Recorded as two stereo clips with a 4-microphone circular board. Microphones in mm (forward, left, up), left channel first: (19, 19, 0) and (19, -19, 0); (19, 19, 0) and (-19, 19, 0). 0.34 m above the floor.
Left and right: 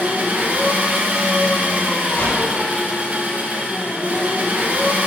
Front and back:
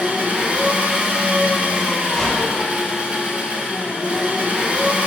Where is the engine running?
130° right, 0.9 m.